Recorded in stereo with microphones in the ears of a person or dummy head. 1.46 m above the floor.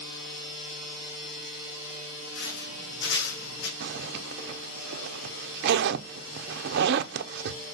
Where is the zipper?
60° right (ahead or behind), 0.6 m.